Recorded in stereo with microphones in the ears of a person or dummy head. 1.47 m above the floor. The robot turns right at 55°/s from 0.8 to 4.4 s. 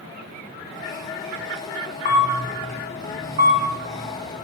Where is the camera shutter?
35° left (ahead or behind), 4.5 m; by 4.4 s 85° right, 4.5 m.